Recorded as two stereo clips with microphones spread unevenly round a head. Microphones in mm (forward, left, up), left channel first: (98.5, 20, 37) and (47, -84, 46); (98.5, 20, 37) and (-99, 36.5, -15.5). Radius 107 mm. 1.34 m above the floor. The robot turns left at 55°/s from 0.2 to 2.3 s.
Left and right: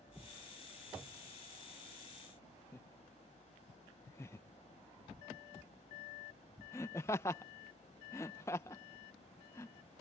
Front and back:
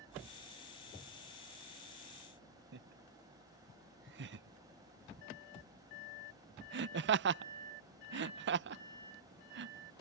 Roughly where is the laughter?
Behind left.